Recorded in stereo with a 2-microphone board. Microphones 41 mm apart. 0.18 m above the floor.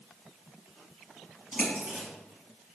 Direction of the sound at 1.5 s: 30° right (ahead or behind).